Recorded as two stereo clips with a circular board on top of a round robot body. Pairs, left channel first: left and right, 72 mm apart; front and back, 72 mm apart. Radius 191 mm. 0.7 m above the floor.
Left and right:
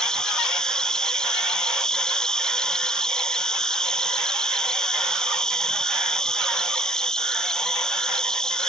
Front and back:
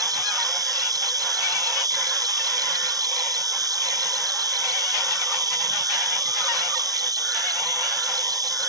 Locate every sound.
0.0 s an insect: 170° left